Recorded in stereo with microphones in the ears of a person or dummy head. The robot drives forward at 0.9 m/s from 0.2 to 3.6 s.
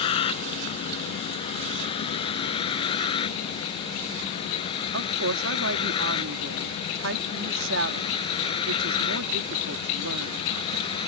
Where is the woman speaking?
80° right.